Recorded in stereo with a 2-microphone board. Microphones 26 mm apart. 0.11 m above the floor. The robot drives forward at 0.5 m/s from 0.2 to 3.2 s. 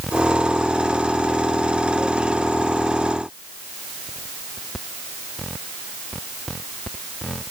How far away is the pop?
No pop in this recording.